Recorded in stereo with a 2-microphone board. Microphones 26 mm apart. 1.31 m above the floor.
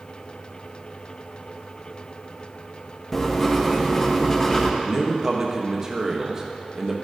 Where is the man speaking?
25° right (ahead or behind), 1.2 m.